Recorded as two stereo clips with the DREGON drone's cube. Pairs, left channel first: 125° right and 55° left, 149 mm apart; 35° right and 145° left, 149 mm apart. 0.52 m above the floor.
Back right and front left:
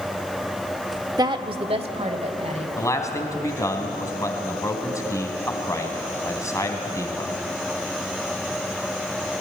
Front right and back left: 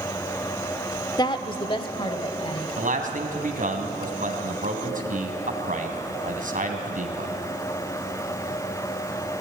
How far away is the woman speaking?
About 0.9 m.